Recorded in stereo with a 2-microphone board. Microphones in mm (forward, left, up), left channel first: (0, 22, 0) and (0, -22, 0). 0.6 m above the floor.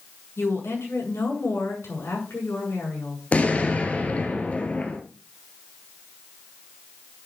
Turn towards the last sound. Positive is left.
turn(degrees=30)  # may be behind; listen again after turning